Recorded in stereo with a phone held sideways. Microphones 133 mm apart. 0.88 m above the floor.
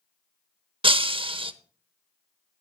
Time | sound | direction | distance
0.8 | breaking glass | 40° right (ahead or behind) | 0.7 m